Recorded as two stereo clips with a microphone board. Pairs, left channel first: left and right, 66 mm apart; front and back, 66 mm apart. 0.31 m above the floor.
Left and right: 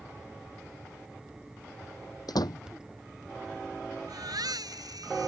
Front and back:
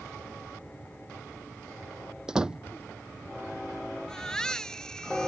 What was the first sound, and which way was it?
A door slam, 100° left.